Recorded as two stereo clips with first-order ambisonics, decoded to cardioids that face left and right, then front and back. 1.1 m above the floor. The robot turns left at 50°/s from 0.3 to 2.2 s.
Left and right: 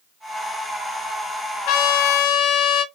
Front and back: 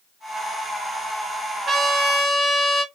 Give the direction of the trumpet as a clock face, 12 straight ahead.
9 o'clock.